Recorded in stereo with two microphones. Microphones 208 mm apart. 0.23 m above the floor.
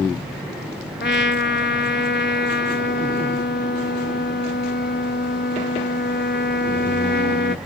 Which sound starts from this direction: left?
A trumpet, at 1.0 s.